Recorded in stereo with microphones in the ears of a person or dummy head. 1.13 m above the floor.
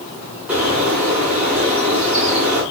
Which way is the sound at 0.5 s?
5° right (ahead or behind).